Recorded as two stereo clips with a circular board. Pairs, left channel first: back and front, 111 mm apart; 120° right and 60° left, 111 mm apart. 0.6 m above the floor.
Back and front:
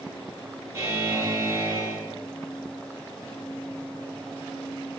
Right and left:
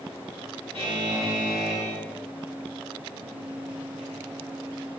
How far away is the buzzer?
About 1.5 m.